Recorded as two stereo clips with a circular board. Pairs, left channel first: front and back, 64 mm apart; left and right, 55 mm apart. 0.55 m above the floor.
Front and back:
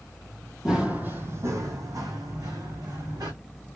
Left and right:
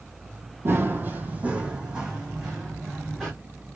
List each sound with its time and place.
0.7 s running footsteps: 105° right, 0.7 m; by 3.3 s straight behind, 2.0 m